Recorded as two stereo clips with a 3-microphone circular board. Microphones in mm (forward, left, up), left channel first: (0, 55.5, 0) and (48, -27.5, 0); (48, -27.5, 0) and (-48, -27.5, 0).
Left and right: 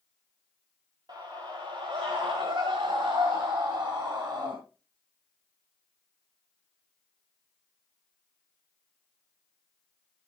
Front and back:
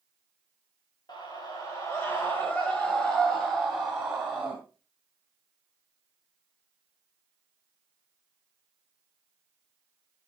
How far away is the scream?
About 1.9 m.